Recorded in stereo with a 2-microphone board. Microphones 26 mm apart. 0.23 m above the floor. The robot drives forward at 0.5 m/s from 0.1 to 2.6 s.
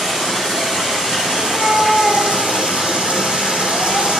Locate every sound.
0.0 s running water: 30° right (ahead or behind), 3 m; by 4.2 s 50° right (ahead or behind), 2 m
1.4 s a cat meowing: 80° right, 5 m; by 4.1 s 85° right, 5 m